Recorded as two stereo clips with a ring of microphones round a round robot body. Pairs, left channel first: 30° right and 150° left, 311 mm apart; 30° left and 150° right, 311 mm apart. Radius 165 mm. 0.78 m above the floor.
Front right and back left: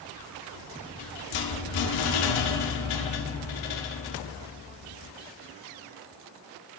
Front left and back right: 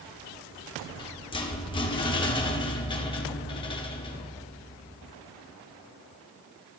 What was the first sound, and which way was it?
A rattle, 45° right.